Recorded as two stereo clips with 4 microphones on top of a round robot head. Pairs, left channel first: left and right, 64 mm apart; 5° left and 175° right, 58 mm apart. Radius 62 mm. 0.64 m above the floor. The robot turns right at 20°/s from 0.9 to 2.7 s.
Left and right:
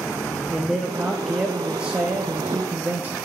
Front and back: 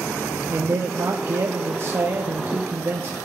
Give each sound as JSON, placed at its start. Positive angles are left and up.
{"t": 0.5, "sound": "a man speaking", "azimuth_deg": -175, "distance_m": 0.6}